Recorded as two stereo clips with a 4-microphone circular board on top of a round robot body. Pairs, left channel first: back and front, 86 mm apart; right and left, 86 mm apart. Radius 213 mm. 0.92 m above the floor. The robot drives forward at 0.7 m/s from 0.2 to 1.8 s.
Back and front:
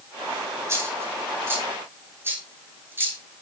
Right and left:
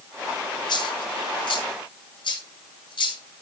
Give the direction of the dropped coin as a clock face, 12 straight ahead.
2 o'clock.